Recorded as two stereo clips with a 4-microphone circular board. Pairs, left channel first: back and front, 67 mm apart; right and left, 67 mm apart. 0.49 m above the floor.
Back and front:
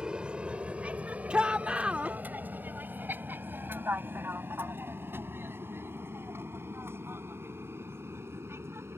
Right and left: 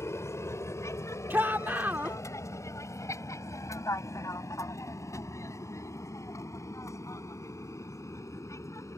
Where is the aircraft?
75° right; by 9.0 s 50° right.